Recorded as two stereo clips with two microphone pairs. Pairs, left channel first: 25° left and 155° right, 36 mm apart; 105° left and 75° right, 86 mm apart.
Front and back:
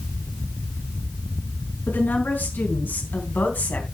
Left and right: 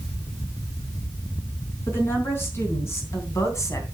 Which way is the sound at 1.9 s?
40° left.